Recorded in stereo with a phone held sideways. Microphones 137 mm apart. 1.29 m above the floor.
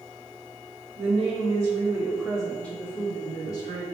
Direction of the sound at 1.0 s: 50° right (ahead or behind).